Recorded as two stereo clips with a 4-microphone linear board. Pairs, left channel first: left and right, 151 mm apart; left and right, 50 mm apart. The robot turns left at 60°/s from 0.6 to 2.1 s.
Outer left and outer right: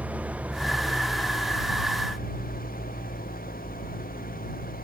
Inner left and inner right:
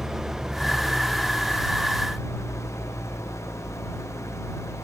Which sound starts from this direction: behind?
An engine running, at 0.0 s.